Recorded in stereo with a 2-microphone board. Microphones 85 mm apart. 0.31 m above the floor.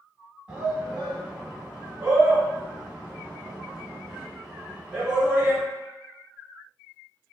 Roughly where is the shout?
Centre.